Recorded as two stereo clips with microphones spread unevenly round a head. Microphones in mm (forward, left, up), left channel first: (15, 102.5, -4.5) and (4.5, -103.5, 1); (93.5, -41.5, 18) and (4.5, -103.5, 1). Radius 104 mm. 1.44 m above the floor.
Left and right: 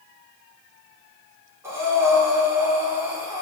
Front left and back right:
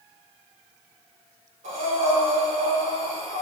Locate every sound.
1.6 s breathing: 170° right, 5.5 m